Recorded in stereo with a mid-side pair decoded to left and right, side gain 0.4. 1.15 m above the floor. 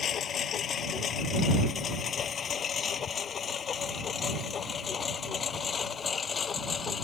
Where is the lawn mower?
65° left; by 7.0 s 45° left.